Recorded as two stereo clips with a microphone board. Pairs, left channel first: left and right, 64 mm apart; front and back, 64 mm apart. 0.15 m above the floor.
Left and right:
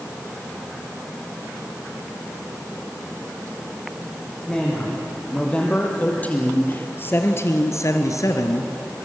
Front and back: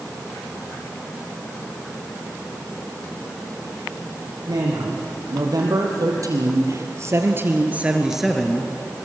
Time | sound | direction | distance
4.5 | a man speaking | 170° left | 6.5 m